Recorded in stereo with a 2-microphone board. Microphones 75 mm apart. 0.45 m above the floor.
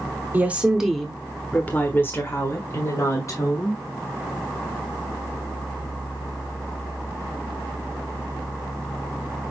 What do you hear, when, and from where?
0.3 s a woman speaking: 20° right (ahead or behind), 1.0 m; by 3.8 s 45° left (ahead or behind), 2.5 m